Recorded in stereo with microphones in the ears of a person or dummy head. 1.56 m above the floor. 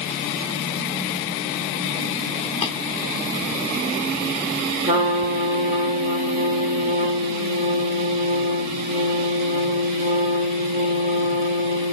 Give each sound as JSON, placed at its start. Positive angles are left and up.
{"t": 2.6, "sound": "tapping", "side_deg": 45, "distance_m": 1.6}
{"t": 4.8, "sound": "a trumpet", "side_deg": -40, "distance_m": 1.4}